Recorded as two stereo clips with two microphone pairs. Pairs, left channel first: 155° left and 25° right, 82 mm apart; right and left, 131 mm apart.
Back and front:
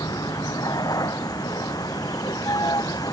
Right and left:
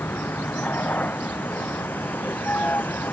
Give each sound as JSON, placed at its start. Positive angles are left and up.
{"t": 0.0, "sound": "a vehicle", "azimuth_deg": -165}